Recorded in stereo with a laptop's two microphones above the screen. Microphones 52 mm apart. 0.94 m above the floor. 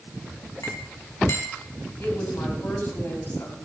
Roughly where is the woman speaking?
Left.